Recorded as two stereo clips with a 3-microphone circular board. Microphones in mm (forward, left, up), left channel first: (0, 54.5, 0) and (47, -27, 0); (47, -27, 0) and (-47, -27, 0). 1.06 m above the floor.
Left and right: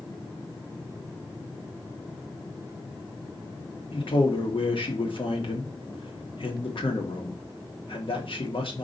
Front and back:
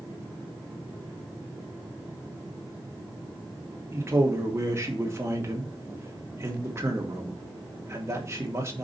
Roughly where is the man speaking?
Behind left.